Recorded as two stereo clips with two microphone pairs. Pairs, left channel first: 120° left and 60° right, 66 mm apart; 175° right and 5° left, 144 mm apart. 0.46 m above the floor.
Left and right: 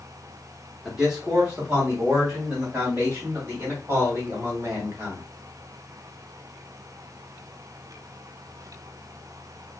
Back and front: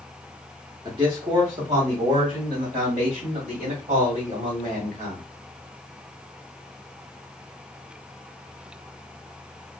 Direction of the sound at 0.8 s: 20° left.